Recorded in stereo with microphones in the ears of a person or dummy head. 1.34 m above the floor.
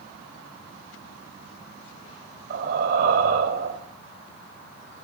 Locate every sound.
2.5 s breathing: 55° right (ahead or behind), 3 m